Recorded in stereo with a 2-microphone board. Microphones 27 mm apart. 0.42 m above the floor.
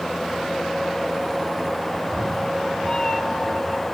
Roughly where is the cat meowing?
Centre.